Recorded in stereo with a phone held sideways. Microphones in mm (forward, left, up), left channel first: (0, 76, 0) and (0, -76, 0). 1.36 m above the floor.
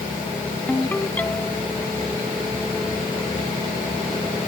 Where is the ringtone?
10° left (ahead or behind).